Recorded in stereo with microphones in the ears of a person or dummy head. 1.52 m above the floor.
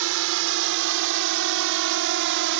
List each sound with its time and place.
0.0 s a drone: 70° right (ahead or behind); by 2.6 s 65° right (ahead or behind)